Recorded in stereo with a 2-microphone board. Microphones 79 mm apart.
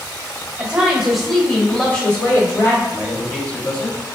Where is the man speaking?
15° left (ahead or behind), 0.9 m.